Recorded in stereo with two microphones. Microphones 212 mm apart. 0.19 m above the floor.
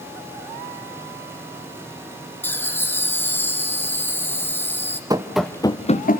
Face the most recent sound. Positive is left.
turn(degrees=45)  # may be behind; listen again after turning